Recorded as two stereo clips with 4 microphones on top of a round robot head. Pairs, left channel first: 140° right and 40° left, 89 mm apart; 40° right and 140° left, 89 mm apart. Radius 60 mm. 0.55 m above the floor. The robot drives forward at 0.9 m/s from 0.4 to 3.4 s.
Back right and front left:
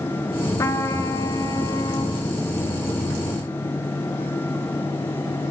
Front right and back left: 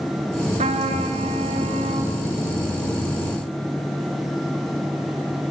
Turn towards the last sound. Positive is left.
turn(degrees=170)